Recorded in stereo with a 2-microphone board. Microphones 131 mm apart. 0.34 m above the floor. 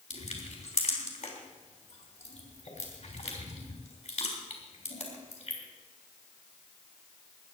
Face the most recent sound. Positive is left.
turn(degrees=60)  # may be behind; listen again after turning